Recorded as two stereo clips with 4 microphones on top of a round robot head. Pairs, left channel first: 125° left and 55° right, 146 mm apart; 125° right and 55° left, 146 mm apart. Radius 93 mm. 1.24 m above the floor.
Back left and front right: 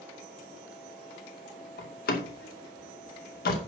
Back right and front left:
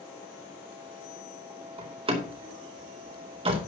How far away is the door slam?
About 2.5 m.